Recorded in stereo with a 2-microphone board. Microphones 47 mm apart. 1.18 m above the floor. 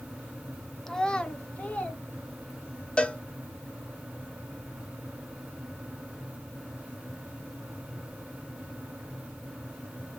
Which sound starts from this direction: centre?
A child speaking, at 0.9 s.